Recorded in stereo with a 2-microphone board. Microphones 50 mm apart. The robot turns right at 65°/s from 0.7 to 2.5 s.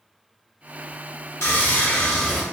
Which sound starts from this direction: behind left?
Sawing, at 1.4 s.